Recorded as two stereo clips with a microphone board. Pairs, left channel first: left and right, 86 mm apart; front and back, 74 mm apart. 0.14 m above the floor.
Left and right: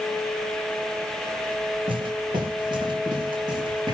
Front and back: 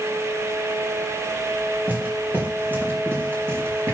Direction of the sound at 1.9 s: 110° right.